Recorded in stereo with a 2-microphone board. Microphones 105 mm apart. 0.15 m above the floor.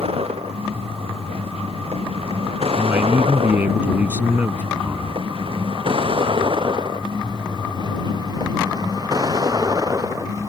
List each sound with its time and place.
0.0 s a vehicle: 85° right; by 10.5 s 35° right (ahead or behind)
2.8 s a man speaking: 20° right (ahead or behind)